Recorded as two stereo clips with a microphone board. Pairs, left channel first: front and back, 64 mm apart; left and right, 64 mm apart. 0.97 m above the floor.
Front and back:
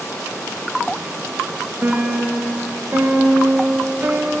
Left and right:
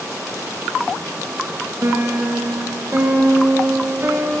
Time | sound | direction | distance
1.8 | a piano | 125° right | 0.6 m